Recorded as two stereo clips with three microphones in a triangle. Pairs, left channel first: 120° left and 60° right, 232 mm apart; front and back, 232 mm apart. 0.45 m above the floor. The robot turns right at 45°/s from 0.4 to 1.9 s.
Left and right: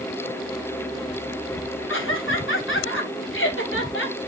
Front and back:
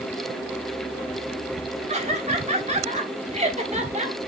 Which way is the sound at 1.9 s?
125° left.